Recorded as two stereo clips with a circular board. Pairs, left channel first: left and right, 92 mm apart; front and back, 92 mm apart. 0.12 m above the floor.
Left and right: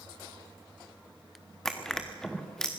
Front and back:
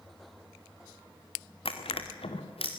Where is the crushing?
5° left, 2 m.